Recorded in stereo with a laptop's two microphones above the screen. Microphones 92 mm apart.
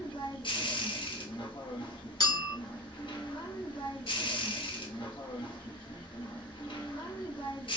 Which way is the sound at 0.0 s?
65° left (ahead or behind).